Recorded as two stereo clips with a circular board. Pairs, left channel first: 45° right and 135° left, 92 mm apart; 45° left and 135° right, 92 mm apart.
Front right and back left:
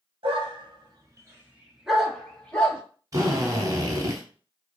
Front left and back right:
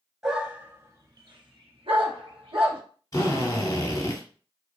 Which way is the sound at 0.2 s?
140° left.